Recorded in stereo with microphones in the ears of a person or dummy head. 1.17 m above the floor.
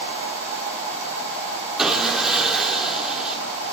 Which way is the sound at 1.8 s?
5° right (ahead or behind).